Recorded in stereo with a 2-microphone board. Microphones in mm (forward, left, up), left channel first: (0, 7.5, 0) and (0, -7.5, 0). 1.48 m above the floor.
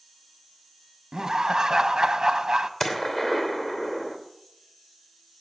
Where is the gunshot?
25° left (ahead or behind), 3 m.